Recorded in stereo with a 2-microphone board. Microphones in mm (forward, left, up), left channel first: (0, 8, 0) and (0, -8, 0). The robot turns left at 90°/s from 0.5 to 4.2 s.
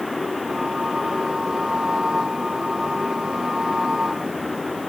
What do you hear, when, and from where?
Only background noise.